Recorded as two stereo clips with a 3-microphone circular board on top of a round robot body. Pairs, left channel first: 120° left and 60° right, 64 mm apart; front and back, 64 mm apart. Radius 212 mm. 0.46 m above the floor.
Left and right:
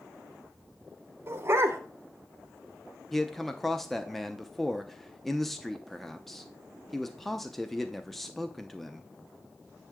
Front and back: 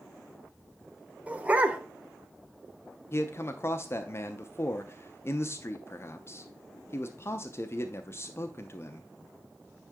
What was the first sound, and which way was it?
A dog barking, 110° right.